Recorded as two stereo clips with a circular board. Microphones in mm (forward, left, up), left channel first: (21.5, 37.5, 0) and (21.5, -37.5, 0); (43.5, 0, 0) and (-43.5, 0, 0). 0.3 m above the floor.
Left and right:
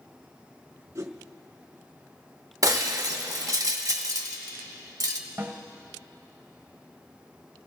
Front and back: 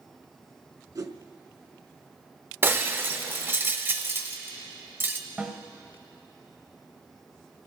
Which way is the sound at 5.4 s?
120° right.